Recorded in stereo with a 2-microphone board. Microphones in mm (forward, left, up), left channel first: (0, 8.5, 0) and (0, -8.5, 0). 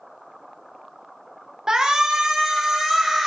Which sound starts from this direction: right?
A shout, at 1.7 s.